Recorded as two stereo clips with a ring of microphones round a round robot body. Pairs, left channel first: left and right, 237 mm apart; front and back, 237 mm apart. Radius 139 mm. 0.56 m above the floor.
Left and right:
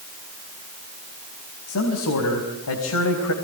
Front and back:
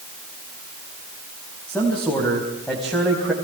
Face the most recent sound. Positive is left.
turn(degrees=95)